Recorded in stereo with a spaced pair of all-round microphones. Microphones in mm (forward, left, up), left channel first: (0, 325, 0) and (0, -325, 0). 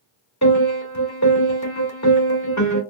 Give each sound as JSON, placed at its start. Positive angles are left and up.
{"t": 0.4, "sound": "a piano", "side_deg": 25, "distance_m": 1.6}